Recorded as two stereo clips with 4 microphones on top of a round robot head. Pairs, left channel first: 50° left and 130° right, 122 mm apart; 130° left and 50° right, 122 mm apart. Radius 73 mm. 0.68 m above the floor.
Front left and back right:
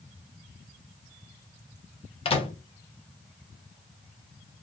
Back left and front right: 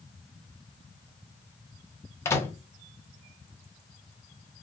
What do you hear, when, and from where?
2.2 s a microwave: 70° left, 0.8 m